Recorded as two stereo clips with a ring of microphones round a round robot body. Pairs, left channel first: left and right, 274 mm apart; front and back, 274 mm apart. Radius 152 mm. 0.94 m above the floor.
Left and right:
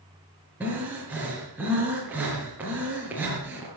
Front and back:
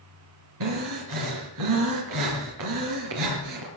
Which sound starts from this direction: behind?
Breathing, at 0.6 s.